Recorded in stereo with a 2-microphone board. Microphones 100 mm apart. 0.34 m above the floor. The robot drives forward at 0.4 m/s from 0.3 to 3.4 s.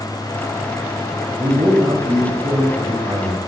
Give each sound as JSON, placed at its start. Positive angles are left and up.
{"t": 1.4, "sound": "a man speaking", "side_deg": -50, "distance_m": 2.5}